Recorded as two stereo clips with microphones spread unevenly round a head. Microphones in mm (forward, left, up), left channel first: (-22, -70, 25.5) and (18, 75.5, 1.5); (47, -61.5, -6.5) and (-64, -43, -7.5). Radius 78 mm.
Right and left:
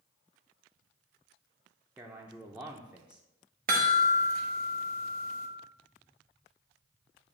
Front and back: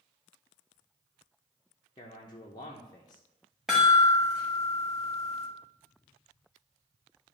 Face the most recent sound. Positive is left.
turn(degrees=85)